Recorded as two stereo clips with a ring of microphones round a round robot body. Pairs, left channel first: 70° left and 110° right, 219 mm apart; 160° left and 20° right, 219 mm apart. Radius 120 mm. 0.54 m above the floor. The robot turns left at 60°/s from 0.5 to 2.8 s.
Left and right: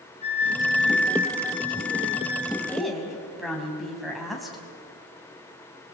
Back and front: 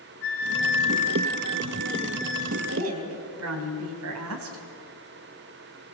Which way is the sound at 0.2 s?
130° left.